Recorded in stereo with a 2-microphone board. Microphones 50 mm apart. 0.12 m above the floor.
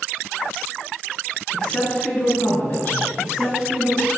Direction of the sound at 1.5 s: 15° left (ahead or behind).